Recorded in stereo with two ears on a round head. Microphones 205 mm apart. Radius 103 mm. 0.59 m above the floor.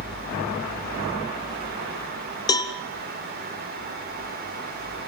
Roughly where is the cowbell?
Centre.